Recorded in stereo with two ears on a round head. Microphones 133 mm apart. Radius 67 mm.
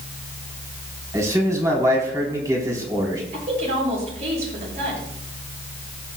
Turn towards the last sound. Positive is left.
turn(degrees=-50)  # may be behind; listen again after turning